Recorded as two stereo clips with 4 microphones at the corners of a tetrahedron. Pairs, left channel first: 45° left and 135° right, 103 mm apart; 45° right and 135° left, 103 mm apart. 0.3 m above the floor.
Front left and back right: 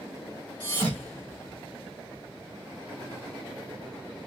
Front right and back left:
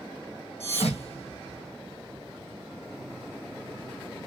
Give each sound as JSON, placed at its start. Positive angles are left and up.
{"t": 0.6, "sound": "a thud", "azimuth_deg": -30, "distance_m": 1.5}